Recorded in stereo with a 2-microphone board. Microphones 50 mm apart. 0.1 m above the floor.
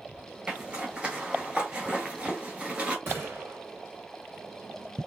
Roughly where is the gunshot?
Right.